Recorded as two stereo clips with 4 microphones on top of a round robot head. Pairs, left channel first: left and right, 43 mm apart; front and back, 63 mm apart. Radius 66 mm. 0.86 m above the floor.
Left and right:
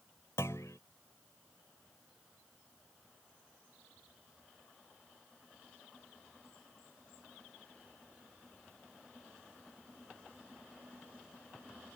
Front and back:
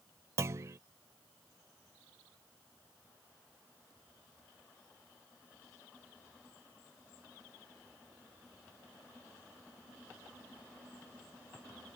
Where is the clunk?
145° left.